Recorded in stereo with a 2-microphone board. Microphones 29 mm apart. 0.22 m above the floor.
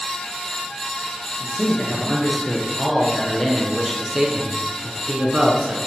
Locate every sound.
1.4 s a man speaking: 35° left (ahead or behind), 3.5 m; by 5.8 s 50° right (ahead or behind), 2 m